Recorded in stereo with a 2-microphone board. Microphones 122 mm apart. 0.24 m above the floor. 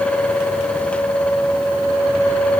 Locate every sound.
Only background noise.